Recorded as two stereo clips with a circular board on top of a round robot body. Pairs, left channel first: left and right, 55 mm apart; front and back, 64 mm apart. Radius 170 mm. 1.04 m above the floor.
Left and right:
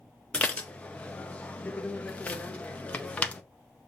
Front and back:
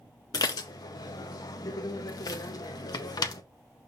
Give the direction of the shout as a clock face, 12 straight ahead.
I don't hear a shout.